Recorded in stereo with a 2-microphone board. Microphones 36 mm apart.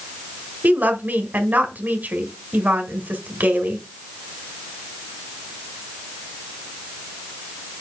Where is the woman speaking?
55° right (ahead or behind), 1.7 m.